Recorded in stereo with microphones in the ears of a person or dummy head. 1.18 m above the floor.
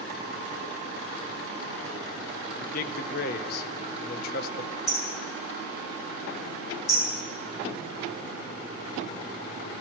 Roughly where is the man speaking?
Left.